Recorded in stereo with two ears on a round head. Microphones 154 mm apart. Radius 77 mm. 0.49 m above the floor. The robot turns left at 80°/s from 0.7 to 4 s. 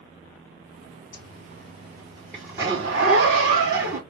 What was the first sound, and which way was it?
A zipper, 80° left.